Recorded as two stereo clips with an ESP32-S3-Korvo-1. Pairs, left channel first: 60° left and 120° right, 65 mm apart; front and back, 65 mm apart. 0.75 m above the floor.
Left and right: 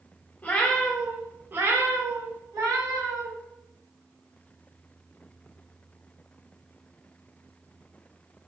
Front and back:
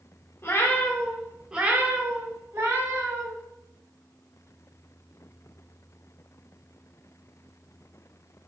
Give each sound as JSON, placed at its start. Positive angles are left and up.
{"t": 0.4, "sound": "a cat meowing", "azimuth_deg": 5, "distance_m": 0.6}